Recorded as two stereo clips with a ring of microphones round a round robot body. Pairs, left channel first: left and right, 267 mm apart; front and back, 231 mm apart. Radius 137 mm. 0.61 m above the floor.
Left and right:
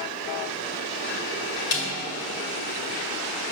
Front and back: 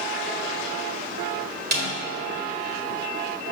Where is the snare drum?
135° left, 1.8 m.